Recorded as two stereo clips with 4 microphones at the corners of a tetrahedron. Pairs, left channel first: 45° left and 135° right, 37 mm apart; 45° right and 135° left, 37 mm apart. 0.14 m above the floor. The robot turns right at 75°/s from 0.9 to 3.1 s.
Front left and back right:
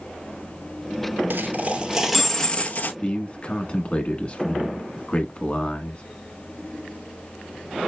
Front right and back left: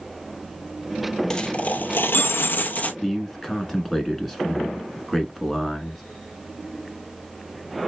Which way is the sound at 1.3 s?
115° right.